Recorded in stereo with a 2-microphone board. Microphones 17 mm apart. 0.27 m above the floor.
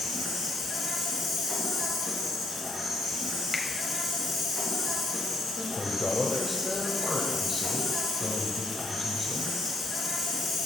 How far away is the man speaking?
About 0.9 m.